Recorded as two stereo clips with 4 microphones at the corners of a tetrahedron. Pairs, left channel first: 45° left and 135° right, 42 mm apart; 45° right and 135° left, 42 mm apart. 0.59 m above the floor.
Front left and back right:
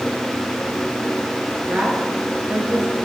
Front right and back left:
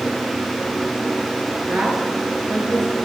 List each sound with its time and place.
1.7 s a woman speaking: 175° left, 8.5 m